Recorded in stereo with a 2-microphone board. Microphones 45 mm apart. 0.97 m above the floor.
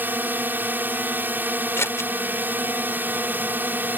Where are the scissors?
80° left.